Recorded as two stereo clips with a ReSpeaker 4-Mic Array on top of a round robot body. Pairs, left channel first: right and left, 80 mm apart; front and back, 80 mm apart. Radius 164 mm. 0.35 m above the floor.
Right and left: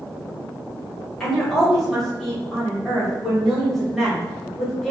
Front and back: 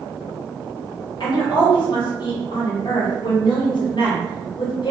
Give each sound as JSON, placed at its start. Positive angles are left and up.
{"t": 1.2, "sound": "a woman speaking", "azimuth_deg": -5, "distance_m": 1.8}